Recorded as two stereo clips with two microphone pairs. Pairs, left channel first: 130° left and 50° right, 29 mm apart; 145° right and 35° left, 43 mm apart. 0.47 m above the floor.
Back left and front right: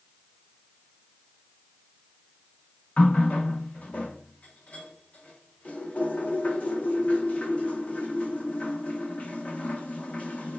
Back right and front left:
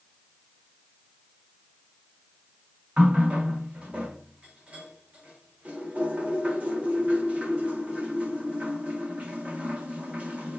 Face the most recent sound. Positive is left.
turn(degrees=95)